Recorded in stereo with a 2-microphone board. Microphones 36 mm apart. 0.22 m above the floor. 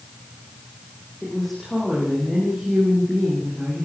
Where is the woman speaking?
Centre (ahead or behind), 10 m.